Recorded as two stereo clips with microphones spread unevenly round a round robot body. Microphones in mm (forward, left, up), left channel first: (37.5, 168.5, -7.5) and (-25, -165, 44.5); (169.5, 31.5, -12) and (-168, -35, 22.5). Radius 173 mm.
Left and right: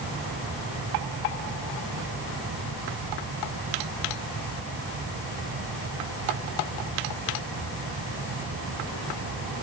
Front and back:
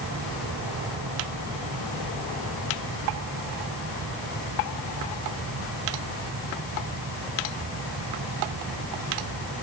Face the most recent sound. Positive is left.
No sound to turn to.